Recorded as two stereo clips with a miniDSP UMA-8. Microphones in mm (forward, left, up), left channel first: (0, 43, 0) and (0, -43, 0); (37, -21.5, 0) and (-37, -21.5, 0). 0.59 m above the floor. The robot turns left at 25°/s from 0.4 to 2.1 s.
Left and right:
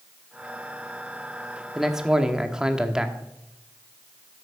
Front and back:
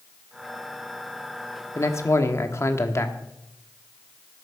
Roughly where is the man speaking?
Ahead.